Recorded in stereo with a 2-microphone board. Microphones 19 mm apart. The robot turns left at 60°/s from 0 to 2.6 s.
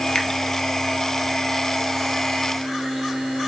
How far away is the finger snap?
About 1.2 m.